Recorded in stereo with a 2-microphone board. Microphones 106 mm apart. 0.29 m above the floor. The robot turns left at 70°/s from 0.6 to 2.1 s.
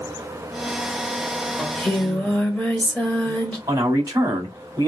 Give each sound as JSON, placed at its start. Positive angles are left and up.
{"t": 1.6, "sound": "singing", "side_deg": 0, "distance_m": 1.3}
{"t": 3.7, "sound": "a man speaking", "side_deg": -35, "distance_m": 1.6}